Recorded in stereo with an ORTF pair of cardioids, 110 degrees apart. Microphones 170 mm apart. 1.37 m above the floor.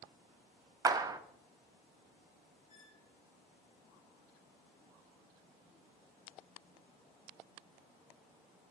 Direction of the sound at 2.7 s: 55° left.